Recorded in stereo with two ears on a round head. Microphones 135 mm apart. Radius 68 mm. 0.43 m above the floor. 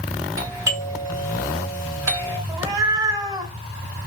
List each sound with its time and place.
0.4 s a doorbell: 20° right (ahead or behind), 1.5 m
2.5 s a cat meowing: 25° right (ahead or behind), 0.8 m